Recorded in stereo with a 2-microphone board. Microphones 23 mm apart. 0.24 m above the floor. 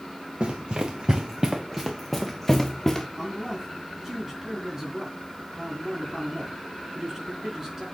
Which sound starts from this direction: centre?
A man speaking, at 3.2 s.